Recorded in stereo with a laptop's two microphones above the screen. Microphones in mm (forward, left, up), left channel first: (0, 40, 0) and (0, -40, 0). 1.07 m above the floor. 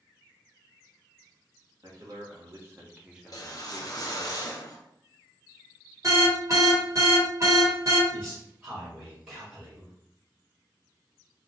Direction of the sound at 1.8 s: 50° right (ahead or behind).